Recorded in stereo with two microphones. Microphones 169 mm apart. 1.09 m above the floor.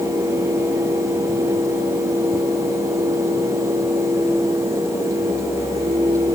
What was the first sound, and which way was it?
Only background noise.